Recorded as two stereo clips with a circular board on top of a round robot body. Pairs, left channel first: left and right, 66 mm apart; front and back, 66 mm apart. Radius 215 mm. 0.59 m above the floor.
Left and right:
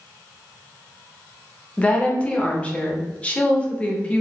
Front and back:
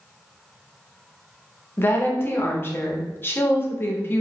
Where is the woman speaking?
30° left, 0.9 m.